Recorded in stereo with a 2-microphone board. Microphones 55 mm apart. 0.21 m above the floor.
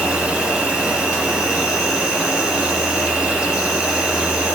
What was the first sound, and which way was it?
An insect, 20° right (ahead or behind).